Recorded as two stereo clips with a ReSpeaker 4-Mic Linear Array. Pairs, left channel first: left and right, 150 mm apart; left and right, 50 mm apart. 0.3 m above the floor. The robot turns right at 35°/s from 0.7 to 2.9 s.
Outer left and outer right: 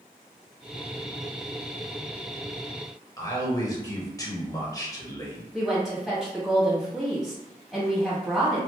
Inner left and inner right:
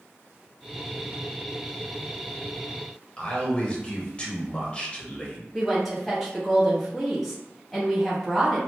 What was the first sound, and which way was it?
A man speaking, 25° left (ahead or behind).